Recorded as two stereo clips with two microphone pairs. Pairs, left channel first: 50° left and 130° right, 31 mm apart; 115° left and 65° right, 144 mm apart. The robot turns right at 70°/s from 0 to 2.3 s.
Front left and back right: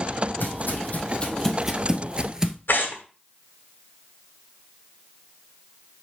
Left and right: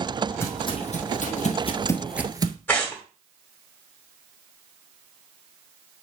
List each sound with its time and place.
0.4 s footsteps: 40° left, 2.5 m; by 2.6 s 60° right, 0.9 m
2.7 s tearing paper: 40° left, 2.5 m